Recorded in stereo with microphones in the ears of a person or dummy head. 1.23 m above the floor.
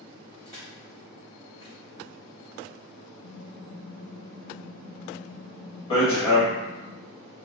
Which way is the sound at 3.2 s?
65° left (ahead or behind).